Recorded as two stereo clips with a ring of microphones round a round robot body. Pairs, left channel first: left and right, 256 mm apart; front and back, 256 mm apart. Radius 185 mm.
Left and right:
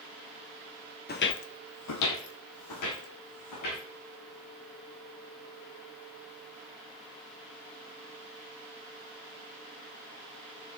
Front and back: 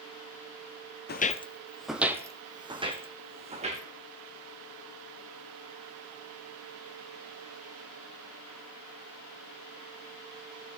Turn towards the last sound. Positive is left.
turn(degrees=115)